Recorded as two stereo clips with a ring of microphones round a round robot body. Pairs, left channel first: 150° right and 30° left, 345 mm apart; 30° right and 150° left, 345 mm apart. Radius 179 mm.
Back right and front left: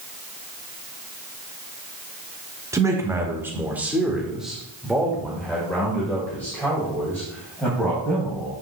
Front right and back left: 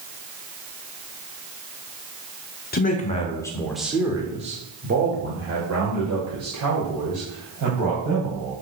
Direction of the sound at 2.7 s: 40° right.